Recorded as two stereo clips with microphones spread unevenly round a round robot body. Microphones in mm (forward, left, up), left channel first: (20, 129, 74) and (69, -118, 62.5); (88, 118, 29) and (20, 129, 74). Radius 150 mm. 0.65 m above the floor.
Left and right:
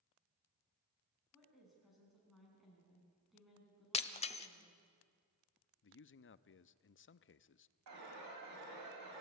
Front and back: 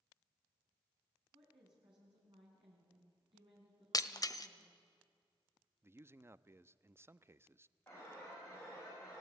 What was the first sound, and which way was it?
A woman speaking, 170° right.